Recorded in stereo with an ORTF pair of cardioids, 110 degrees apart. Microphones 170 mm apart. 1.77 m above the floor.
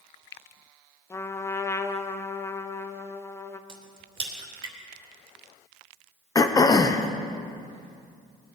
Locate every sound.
1.1 s a trumpet: 15° left, 0.9 m
3.7 s a crack: 30° right, 3 m
6.3 s throat clearing: 20° left, 1.0 m